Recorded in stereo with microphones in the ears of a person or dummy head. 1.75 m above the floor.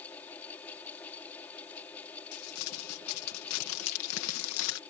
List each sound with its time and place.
0.0 s a fan: 10° left (ahead or behind)
2.3 s crumpling: 80° left